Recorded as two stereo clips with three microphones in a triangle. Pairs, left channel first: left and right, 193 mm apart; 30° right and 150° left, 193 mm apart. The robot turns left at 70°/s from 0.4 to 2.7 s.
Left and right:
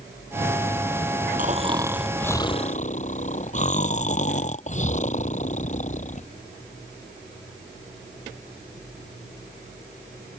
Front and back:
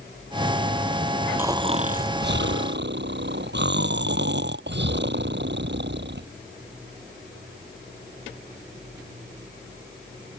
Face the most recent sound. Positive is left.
turn(degrees=140)